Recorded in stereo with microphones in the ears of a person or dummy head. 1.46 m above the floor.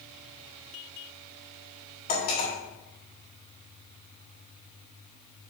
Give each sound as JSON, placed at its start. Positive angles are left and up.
{"t": 2.1, "sound": "cutlery clinking", "side_deg": 40, "distance_m": 2.5}